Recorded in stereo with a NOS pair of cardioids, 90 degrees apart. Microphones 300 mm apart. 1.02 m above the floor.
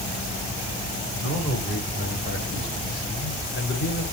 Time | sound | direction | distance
1.2 | a man speaking | 45° left | 9 m